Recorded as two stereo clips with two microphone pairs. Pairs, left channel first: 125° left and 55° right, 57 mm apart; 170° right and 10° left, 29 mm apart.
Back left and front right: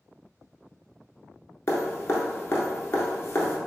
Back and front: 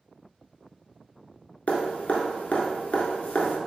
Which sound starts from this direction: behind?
Dripping, at 1.7 s.